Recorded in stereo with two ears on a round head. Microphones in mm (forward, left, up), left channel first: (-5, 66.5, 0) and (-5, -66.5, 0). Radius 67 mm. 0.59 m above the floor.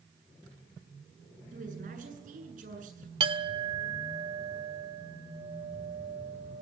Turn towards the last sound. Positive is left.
turn(degrees=-35)  # may be behind; listen again after turning